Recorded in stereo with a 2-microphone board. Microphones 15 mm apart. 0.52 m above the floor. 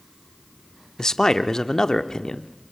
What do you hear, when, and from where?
1.0 s a man speaking: 35° left (ahead or behind), 0.8 m